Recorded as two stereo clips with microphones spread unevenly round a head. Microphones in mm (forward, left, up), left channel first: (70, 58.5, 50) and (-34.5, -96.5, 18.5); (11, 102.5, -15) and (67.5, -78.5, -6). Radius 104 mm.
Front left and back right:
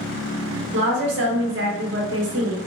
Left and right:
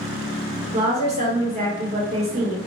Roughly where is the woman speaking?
Behind right.